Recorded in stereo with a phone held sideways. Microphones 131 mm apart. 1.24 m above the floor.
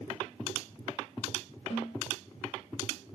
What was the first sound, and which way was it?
A snare drum, 65° left (ahead or behind).